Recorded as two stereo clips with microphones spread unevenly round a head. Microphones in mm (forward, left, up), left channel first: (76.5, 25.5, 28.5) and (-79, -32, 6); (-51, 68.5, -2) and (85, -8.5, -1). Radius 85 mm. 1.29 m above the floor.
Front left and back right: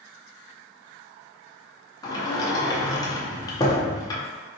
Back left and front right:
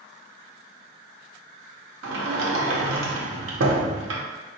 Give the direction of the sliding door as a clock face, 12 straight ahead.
2 o'clock.